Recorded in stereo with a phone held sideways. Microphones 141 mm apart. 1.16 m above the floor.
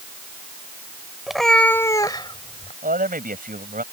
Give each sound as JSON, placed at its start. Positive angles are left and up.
{"t": 1.3, "sound": "a cat meowing", "side_deg": -5}
{"t": 2.8, "sound": "a man speaking", "side_deg": -70}